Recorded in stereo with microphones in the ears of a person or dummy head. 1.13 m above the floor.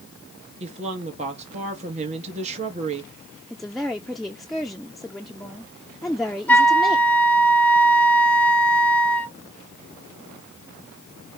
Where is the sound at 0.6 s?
40° right (ahead or behind), 2.5 m.